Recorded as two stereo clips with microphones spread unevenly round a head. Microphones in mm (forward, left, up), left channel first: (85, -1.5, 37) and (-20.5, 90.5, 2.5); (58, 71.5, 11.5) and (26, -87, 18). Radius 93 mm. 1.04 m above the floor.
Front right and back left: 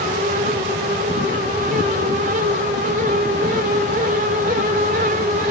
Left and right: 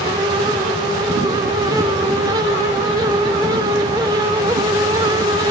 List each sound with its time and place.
Only background noise.